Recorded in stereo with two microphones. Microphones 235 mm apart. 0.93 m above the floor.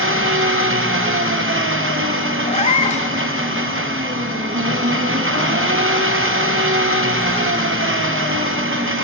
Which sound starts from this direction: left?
A cat meowing, at 2.5 s.